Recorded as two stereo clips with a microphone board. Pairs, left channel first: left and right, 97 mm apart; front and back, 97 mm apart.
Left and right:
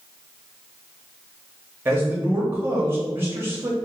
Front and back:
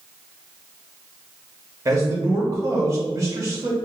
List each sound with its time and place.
1.9 s a man speaking: 140° right, 0.6 m